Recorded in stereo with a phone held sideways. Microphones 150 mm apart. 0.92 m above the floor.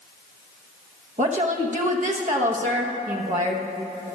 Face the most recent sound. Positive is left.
turn(degrees=-55)  # may be behind; listen again after turning